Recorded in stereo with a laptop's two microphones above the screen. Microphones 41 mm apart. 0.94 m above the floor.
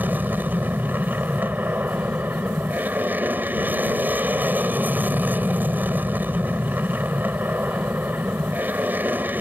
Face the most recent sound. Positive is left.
turn(degrees=-50)  # may be behind; listen again after turning